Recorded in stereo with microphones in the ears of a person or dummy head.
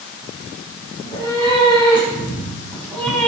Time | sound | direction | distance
1.0 | a cat meowing | 25° left (ahead or behind) | 6.5 m